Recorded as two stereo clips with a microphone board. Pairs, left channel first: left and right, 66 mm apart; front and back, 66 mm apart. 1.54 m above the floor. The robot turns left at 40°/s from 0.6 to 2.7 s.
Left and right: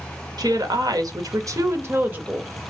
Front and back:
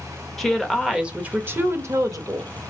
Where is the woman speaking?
90° right, 0.7 m; by 2.5 s 165° right, 0.7 m.